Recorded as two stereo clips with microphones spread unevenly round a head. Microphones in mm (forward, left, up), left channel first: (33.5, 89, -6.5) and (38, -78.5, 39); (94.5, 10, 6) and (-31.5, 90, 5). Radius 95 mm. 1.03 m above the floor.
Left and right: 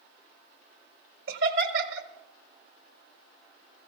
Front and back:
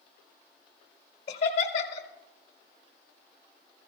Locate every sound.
1.3 s laughter: 85° right, 1.6 m